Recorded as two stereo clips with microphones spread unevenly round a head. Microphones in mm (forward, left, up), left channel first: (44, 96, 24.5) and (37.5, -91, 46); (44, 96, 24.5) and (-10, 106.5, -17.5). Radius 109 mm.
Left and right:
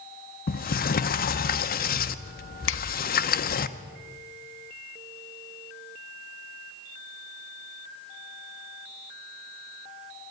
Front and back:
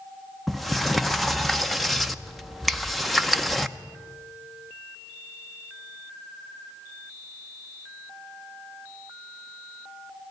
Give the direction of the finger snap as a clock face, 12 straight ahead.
9 o'clock.